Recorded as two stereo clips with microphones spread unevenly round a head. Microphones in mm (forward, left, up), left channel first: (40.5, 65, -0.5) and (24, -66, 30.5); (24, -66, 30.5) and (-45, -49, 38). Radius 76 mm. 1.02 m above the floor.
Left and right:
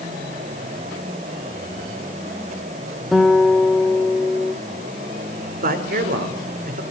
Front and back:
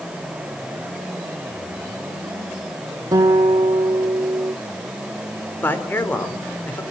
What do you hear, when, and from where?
3.1 s a guitar: 175° right, 0.9 m
5.6 s a man speaking: 75° right, 4 m